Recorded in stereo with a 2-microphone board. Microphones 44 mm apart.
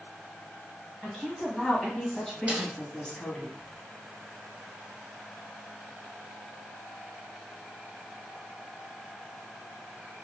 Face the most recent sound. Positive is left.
turn(degrees=-25)  # may be behind; listen again after turning